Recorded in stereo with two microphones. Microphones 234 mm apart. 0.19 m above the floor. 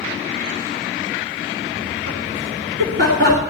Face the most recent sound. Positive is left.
turn(degrees=-55)  # may be behind; listen again after turning